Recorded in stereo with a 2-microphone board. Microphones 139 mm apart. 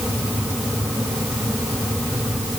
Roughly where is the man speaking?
I don't hear a man speaking.